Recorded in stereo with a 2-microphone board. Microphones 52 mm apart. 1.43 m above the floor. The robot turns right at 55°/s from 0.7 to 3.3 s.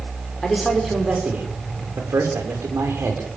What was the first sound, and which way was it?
A man speaking, straight behind.